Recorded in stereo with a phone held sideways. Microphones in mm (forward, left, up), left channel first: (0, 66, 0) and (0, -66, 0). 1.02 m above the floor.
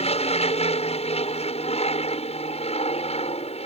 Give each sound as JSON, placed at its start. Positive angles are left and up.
{"t": 0.0, "sound": "an aircraft", "side_deg": 50}